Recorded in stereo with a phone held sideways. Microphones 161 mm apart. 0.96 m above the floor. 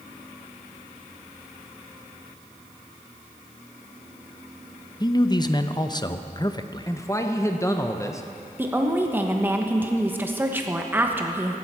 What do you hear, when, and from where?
5.0 s a man speaking: 30° left (ahead or behind), 0.6 m
6.9 s a man speaking: 20° left (ahead or behind), 0.7 m
8.6 s a woman speaking: 15° right (ahead or behind), 1.1 m